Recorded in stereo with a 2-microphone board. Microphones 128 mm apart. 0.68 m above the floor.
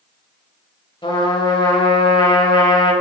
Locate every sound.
1.0 s a trumpet: 40° left (ahead or behind), 1.4 m